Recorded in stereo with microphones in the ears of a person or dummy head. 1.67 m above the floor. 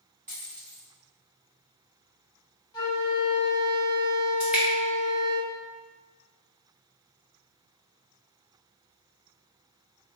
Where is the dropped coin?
25° right (ahead or behind), 1.6 m.